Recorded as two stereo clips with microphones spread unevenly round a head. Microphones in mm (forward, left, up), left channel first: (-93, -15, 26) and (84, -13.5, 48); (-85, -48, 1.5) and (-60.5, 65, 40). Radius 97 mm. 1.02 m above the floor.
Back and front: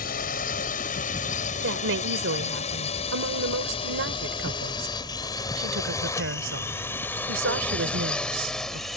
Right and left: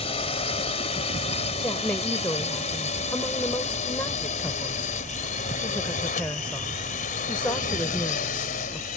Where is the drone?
140° right; by 9.0 s 90° right.